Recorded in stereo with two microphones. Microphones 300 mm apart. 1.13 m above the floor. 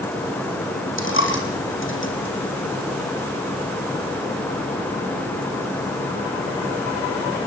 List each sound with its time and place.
1.0 s a dropped coin: 40° left (ahead or behind), 3.5 m